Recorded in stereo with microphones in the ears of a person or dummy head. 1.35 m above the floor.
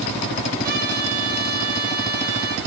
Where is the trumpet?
50° right (ahead or behind), 2.5 m.